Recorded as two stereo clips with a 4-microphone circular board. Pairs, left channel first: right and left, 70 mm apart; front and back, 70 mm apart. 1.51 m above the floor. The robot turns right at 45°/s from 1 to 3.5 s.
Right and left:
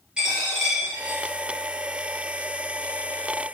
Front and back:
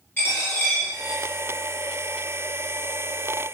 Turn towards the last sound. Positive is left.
turn(degrees=140)